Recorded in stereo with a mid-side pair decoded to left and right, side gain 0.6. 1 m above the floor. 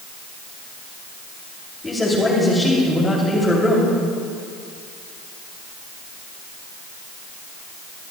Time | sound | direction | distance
1.8 | a man speaking | 15° left | 2.5 m